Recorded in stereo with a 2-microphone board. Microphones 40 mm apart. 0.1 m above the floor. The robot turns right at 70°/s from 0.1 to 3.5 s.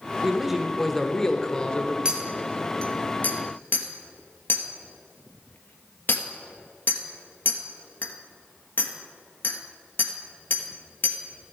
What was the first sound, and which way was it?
A man speaking, 15° right (ahead or behind).